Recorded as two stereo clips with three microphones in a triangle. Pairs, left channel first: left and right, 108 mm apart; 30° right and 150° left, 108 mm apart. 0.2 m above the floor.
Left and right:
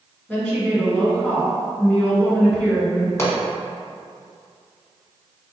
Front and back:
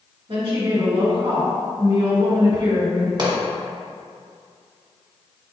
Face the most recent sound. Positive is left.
turn(degrees=140)